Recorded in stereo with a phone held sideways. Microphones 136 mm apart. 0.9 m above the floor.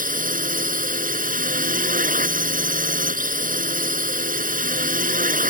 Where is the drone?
75° right (ahead or behind).